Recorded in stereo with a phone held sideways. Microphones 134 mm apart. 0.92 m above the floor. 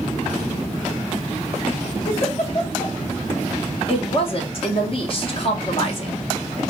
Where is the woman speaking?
45° left (ahead or behind), 0.8 m.